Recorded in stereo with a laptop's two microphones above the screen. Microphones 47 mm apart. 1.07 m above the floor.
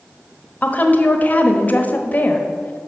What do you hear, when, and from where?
0.6 s a woman speaking: 35° left (ahead or behind), 1.1 m